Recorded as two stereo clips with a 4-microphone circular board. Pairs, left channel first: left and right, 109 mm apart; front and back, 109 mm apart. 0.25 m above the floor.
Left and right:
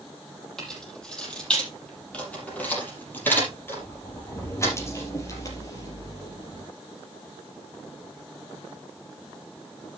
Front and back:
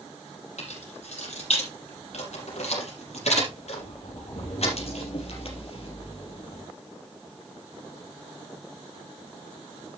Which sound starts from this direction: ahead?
Keys jangling, at 0.6 s.